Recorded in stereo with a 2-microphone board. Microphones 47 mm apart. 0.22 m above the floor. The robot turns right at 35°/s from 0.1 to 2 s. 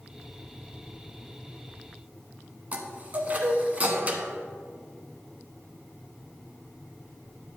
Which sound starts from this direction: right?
A chime, at 2.7 s.